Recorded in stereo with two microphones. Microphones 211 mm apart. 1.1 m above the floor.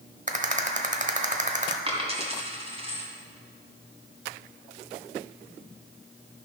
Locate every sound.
0.3 s a rattle: 35° right (ahead or behind), 1.0 m
1.9 s a dropped coin: 25° right (ahead or behind), 2 m